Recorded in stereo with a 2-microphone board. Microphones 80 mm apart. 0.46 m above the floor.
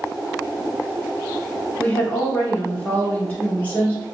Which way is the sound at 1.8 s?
20° left (ahead or behind).